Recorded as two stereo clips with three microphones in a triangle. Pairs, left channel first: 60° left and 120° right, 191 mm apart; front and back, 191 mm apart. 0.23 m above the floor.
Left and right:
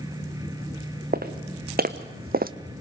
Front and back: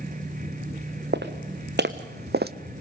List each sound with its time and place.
1.1 s footsteps: 155° right, 1.8 m